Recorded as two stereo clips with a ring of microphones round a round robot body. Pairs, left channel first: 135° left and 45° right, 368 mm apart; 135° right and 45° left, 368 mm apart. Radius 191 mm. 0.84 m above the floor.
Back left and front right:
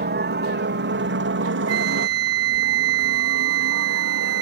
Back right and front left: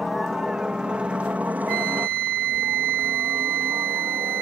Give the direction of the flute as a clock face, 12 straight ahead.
12 o'clock.